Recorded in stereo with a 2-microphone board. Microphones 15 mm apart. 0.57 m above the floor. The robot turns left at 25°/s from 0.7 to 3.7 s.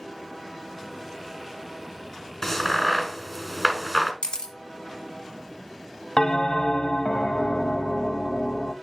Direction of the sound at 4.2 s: 80° left.